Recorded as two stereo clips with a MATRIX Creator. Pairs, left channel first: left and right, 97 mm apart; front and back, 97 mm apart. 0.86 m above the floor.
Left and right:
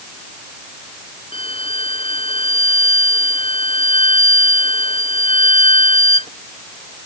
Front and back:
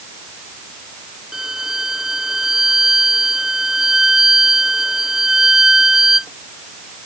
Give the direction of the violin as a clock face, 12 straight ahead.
9 o'clock.